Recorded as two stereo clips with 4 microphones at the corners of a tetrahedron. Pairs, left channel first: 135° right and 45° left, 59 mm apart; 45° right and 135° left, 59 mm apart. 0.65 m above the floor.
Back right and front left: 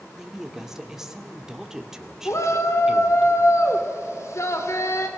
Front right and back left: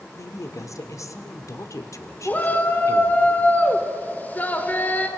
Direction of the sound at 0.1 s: 35° right.